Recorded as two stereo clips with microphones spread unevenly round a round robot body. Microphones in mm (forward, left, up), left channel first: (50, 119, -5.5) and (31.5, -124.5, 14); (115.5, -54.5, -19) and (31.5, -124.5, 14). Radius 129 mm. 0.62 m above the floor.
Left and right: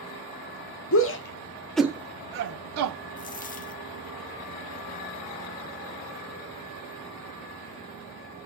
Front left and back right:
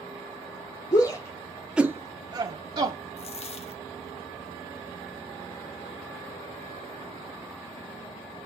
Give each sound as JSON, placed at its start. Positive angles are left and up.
{"t": 0.9, "sound": "a shout", "azimuth_deg": 80, "distance_m": 1.1}
{"t": 3.2, "sound": "a dropped coin", "azimuth_deg": 40, "distance_m": 0.7}